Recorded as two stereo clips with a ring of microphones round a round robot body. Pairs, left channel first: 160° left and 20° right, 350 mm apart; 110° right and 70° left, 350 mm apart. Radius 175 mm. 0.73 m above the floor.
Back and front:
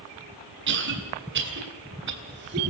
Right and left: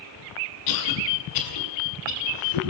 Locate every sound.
0.7 s a cough: 80° right, 7 m